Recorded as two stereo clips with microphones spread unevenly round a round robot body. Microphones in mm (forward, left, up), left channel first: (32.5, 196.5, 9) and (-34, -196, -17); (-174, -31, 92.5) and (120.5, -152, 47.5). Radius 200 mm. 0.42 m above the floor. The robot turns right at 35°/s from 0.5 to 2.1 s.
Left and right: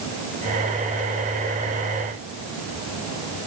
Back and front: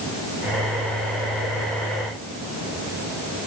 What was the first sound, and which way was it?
Only background noise.